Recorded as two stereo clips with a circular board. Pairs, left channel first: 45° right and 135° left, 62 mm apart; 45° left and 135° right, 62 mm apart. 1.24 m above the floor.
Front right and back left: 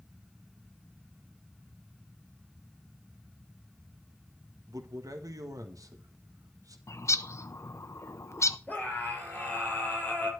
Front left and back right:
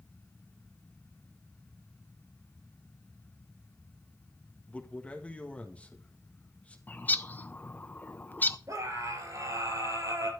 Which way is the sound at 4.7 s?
115° left.